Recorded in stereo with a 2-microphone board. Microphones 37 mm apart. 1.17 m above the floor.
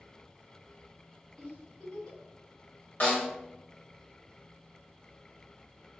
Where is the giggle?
25° left (ahead or behind), 1.9 m.